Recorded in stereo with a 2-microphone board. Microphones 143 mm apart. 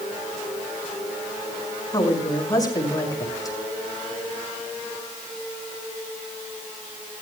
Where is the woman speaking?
25° left (ahead or behind), 6.5 m.